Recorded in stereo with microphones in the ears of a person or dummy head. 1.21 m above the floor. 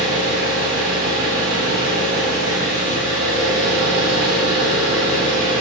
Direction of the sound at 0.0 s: 75° right (ahead or behind).